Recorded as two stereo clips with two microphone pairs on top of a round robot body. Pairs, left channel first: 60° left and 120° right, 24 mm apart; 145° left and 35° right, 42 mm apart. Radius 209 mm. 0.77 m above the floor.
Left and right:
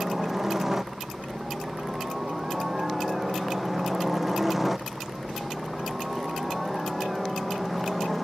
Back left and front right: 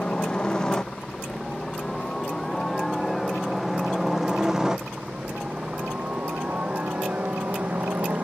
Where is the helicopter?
170° right; by 8.2 s 40° right.